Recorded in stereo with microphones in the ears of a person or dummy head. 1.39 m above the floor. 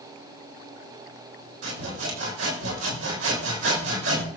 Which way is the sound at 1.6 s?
80° right.